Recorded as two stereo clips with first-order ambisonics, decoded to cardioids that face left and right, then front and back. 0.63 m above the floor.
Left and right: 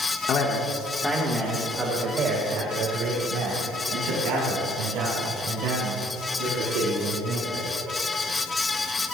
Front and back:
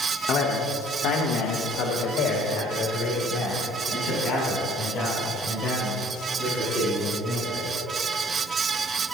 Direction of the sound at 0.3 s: 45° left.